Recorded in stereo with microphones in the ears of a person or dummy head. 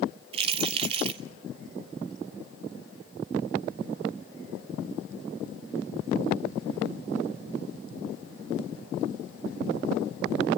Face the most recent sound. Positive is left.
turn(degrees=-30)  # may be behind; listen again after turning